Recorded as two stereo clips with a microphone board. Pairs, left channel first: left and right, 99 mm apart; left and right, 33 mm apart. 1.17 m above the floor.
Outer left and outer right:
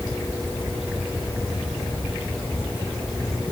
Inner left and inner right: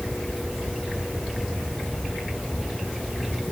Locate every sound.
Only background noise.